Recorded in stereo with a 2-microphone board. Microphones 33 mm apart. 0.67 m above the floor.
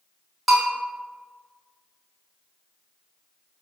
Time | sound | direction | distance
0.5 | a bell | centre (ahead or behind) | 1.1 m